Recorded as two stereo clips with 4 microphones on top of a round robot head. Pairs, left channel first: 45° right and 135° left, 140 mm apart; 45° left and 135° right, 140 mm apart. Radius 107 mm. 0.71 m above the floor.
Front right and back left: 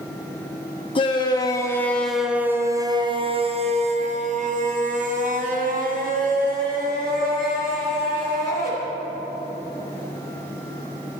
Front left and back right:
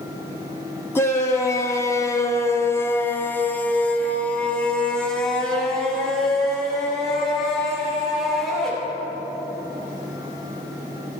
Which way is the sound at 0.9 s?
20° right.